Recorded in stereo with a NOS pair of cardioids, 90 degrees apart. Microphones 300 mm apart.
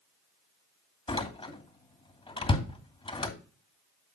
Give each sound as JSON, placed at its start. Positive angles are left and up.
{"t": 1.1, "sound": "a door slam", "azimuth_deg": 15, "distance_m": 2.5}